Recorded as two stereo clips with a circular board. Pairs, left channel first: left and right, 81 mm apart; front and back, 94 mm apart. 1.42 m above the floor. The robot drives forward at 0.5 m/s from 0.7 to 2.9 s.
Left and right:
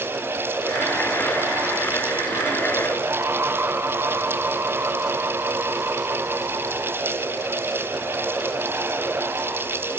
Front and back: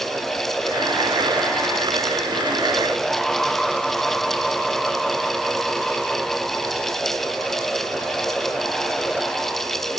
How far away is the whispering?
No whispering in this recording.